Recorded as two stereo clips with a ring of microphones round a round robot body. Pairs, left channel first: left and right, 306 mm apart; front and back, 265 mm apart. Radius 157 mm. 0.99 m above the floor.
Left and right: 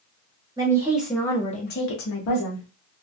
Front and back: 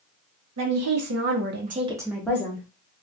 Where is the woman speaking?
165° right, 1.0 m; by 2.7 s 70° left, 0.9 m.